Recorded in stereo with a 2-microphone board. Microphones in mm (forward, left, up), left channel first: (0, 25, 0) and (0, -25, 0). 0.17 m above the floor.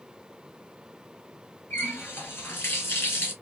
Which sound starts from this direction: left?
A running tap, at 1.7 s.